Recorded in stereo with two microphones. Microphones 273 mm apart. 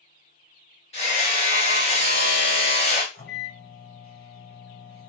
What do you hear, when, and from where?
0.9 s hammering: 20° left (ahead or behind), 1.1 m
3.1 s a microwave: 35° left (ahead or behind), 1.1 m